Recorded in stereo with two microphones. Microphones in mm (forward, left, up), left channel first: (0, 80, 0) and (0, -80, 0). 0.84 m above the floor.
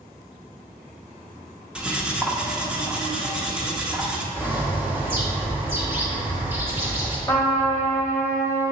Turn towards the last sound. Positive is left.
turn(degrees=15)  # may be behind; listen again after turning